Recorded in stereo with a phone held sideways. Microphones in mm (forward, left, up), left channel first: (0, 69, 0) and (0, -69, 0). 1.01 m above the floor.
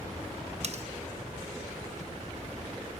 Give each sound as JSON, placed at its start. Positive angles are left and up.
{"t": 0.6, "sound": "cutlery clinking", "side_deg": -50, "distance_m": 0.7}